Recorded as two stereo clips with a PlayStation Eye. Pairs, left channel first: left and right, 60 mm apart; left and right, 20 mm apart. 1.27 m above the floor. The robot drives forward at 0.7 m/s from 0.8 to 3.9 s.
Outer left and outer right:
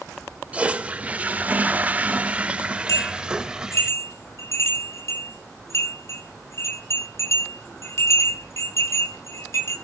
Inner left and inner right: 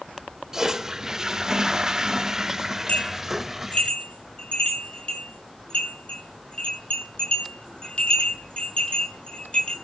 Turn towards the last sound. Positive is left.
turn(degrees=50)  # may be behind; listen again after turning